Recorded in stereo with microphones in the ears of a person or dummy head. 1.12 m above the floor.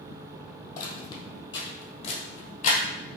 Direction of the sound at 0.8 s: 25° left (ahead or behind).